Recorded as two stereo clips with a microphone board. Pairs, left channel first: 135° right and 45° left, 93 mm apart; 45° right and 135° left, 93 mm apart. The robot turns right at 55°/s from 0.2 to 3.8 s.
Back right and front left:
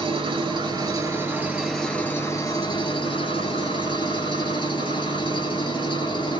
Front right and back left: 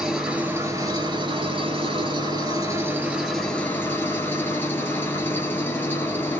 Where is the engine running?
50° left, 1.0 m; by 6.4 s 110° right, 1.0 m.